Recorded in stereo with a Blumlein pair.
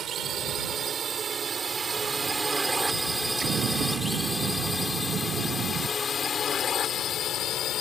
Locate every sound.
0.0 s a drone: 25° right; by 7.8 s 35° left
3.4 s an explosion: 25° right